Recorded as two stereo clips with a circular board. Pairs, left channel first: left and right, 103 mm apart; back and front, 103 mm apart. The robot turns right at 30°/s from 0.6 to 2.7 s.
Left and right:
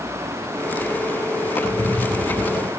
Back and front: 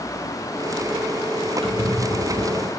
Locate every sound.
1.6 s a squeak: 20° left, 1.3 m; by 2.7 s 50° left, 1.3 m